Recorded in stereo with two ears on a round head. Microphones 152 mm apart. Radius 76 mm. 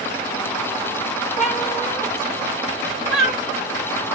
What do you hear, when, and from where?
1.4 s a cat meowing: 5° right (ahead or behind), 1.5 m